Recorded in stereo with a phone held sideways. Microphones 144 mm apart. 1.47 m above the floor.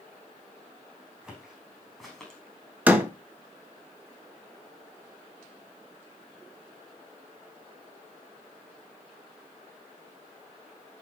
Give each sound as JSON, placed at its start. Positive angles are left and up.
{"t": 1.2, "sound": "footsteps", "side_deg": -5, "distance_m": 4.5}
{"t": 2.9, "sound": "a door slam", "side_deg": -10, "distance_m": 1.4}